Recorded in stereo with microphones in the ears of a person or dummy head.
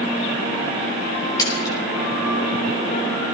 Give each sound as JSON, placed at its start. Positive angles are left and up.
{"t": 1.4, "sound": "a splash", "side_deg": 20, "distance_m": 7.5}